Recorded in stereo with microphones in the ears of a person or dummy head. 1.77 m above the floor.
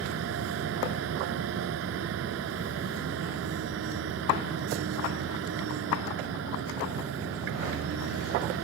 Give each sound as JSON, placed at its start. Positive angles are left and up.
{"t": 0.0, "sound": "a machine running", "side_deg": -80}